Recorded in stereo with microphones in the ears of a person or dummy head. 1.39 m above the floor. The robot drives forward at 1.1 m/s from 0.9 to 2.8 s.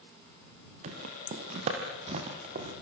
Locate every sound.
0.8 s footsteps: 35° right (ahead or behind), 2 m